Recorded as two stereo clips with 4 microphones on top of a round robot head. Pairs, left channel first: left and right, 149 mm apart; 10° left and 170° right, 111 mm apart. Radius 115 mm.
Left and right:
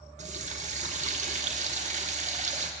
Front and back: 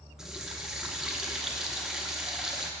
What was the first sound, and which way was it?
A running tap, 85° right.